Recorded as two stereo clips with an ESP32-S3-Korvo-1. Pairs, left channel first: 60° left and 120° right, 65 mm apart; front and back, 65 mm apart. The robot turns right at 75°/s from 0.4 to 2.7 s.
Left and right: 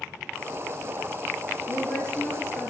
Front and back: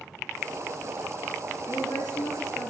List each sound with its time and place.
1.7 s a woman speaking: 45° right, 3.5 m; by 2.7 s 35° left, 3.5 m